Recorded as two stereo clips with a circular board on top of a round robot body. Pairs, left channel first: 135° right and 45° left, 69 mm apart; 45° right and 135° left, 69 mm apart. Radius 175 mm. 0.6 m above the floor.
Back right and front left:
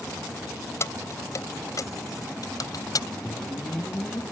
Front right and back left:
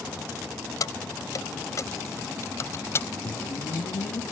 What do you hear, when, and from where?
0.8 s keys jangling: 85° right; by 3.1 s 100° right
3.2 s a whoosh: 60° right